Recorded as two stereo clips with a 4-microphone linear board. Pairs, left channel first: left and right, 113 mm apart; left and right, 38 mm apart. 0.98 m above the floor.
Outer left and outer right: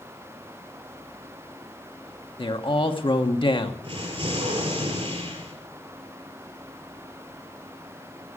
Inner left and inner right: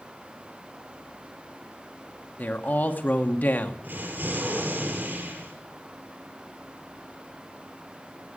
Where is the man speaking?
50° left (ahead or behind), 1.4 m.